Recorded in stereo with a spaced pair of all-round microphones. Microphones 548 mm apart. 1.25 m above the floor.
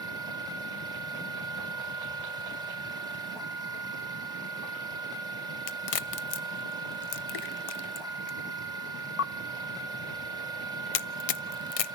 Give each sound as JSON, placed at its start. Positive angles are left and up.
{"t": 0.0, "sound": "a machine running", "side_deg": -5, "distance_m": 4.5}
{"t": 5.7, "sound": "a crack", "side_deg": 80, "distance_m": 0.6}